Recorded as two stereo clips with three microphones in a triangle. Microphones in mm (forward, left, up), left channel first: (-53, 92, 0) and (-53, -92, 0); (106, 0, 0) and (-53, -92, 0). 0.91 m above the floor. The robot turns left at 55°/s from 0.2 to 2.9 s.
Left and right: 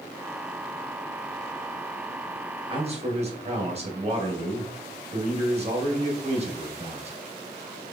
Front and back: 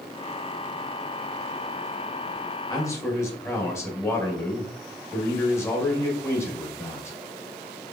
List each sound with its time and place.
2.7 s a man speaking: 30° right, 1.6 m; by 7.2 s 45° right, 1.6 m